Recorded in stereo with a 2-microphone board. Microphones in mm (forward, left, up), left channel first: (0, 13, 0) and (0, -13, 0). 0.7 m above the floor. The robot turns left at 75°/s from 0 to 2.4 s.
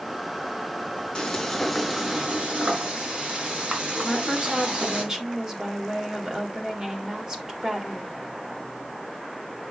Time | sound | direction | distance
1.1 | frying | 40° left | 4.5 m
4.0 | a woman speaking | 30° right (ahead or behind) | 3 m